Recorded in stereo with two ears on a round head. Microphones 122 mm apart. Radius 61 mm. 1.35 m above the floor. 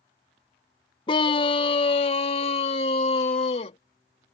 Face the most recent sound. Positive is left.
turn(degrees=45)  # may be behind; listen again after turning